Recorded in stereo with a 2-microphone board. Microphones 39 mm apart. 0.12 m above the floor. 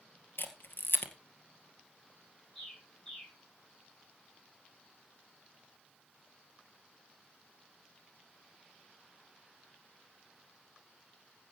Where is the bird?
25° left (ahead or behind), 9 m.